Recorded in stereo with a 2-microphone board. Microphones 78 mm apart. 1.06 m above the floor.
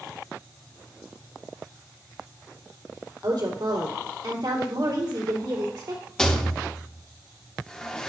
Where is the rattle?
10° left (ahead or behind), 0.8 m.